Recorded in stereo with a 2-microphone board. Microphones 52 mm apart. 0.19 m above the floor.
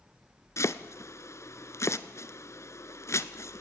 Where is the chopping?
70° left (ahead or behind), 0.7 m.